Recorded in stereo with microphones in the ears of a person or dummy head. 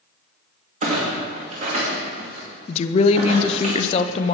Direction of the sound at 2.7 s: 35° left (ahead or behind).